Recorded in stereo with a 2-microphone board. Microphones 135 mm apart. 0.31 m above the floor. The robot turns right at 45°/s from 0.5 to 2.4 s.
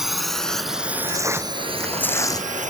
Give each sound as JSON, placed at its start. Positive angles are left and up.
{"t": 0.0, "sound": "a drone", "side_deg": -5}
{"t": 1.1, "sound": "tearing paper", "azimuth_deg": -30}